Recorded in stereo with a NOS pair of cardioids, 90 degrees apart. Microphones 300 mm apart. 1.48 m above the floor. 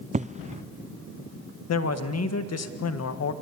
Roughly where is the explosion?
Ahead right.